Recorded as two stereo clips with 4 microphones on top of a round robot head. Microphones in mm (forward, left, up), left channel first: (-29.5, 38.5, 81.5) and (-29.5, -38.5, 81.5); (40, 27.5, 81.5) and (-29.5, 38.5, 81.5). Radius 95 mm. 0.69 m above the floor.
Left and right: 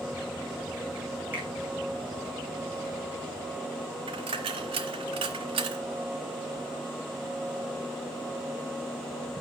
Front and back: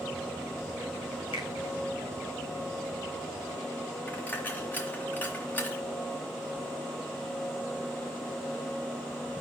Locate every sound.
1.3 s a finger snap: 20° right, 4 m
4.1 s a dropped coin: 80° right, 1.0 m